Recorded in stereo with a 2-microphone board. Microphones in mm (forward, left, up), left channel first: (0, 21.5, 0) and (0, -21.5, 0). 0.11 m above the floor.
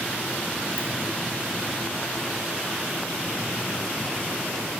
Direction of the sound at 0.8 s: 70° right (ahead or behind).